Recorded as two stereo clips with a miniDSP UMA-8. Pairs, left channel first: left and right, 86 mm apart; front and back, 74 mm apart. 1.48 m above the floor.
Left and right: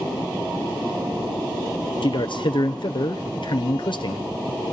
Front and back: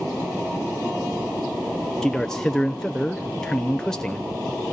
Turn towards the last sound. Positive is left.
turn(degrees=80)